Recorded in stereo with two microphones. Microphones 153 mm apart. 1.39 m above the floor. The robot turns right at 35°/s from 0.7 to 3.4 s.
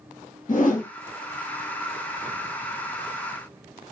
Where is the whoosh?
60° left (ahead or behind), 1.2 m; by 0.9 s 55° left (ahead or behind), 1.2 m.